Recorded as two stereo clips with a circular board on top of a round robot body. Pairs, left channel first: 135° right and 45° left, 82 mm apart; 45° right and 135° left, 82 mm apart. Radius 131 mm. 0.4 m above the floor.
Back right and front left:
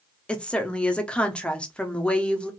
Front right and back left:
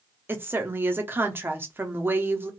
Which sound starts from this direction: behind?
A woman speaking, at 0.3 s.